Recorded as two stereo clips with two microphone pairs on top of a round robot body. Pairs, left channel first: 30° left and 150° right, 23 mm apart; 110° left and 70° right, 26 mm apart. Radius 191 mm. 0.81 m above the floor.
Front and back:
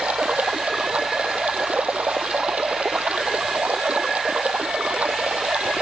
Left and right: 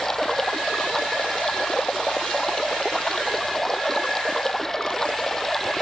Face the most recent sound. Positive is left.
turn(degrees=-175)